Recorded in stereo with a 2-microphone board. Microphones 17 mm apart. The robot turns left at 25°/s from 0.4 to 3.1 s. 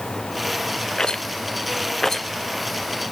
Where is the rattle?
50° left (ahead or behind), 0.8 m; by 2.3 s 20° left (ahead or behind), 0.8 m.